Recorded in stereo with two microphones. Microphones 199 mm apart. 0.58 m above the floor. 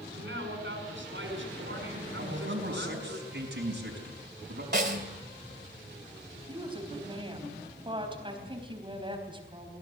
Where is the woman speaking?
25° right (ahead or behind), 4 m.